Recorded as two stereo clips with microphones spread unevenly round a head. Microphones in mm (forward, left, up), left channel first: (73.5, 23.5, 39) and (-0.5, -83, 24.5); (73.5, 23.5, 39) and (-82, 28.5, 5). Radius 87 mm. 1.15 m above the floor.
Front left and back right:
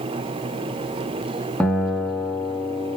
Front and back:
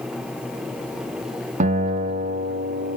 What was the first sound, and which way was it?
A guitar, 135° left.